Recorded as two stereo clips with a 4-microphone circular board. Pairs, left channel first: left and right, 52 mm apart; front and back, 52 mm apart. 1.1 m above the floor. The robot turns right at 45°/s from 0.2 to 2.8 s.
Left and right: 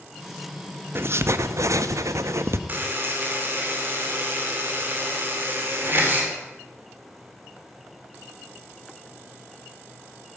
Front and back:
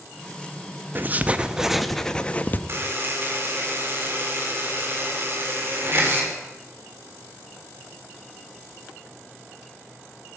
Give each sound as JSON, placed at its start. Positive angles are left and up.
{"t": 0.9, "sound": "writing", "azimuth_deg": -130, "distance_m": 0.8}
{"t": 2.7, "sound": "a buzzer", "azimuth_deg": -140, "distance_m": 3.5}